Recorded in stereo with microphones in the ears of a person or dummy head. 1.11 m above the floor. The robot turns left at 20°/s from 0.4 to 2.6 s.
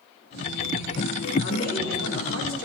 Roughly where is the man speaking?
Left.